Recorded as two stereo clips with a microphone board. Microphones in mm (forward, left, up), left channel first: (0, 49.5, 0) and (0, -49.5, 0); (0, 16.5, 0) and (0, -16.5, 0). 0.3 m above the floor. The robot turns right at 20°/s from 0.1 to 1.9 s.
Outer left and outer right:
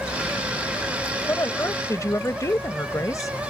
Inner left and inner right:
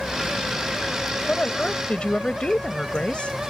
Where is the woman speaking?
30° left (ahead or behind); by 3.3 s 35° left (ahead or behind).